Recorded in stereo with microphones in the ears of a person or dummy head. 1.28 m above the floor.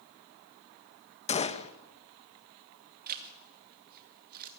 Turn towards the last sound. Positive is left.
turn(degrees=-50)  # may be behind; listen again after turning